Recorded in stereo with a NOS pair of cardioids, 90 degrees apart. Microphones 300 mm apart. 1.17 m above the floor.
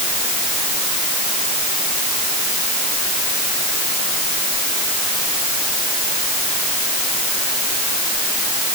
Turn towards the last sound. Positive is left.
No sound to turn to.